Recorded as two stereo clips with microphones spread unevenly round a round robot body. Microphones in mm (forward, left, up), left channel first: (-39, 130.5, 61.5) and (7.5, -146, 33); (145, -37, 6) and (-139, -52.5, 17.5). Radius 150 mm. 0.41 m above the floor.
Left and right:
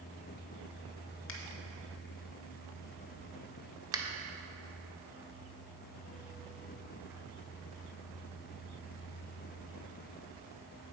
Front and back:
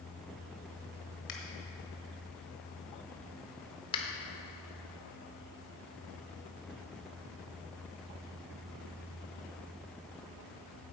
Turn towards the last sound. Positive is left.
turn(degrees=-35)